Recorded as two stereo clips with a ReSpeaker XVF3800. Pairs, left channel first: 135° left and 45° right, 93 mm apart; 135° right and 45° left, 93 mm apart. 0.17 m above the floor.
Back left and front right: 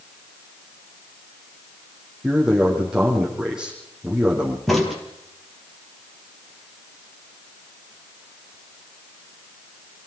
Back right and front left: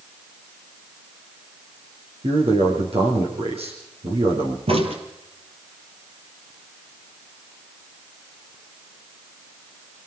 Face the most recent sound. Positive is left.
turn(degrees=45)